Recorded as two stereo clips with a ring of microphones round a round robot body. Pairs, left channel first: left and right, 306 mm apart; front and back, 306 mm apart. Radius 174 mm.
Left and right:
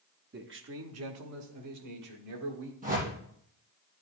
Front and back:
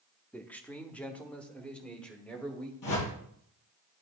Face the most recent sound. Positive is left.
turn(degrees=-20)